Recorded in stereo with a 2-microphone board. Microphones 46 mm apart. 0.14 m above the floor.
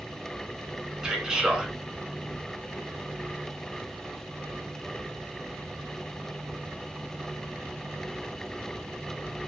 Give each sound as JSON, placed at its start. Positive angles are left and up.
{"t": 1.0, "sound": "a man speaking", "side_deg": -15, "distance_m": 1.1}